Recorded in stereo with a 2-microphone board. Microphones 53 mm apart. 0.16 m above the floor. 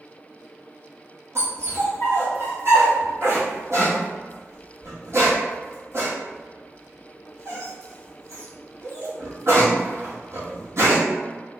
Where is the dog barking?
60° right (ahead or behind), 1.3 m.